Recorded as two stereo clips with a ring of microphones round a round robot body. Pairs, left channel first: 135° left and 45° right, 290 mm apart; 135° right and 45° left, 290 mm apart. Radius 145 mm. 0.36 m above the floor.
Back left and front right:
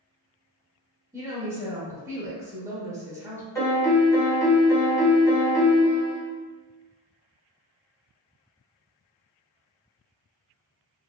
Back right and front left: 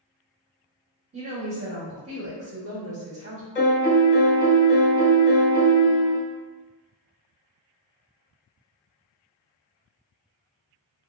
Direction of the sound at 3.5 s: 150° right.